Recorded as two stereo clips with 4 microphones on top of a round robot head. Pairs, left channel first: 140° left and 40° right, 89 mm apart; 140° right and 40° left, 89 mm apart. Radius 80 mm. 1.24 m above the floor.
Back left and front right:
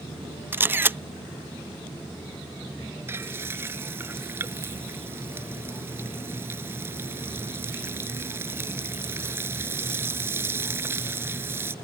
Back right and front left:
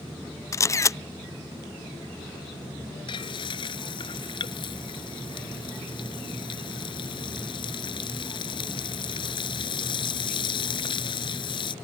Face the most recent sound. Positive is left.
turn(degrees=-105)